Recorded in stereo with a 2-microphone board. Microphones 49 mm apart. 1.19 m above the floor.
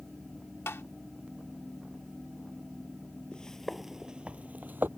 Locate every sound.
0.7 s tapping: 60° left (ahead or behind)
3.3 s footsteps: 20° left (ahead or behind); by 4.9 s 45° right (ahead or behind)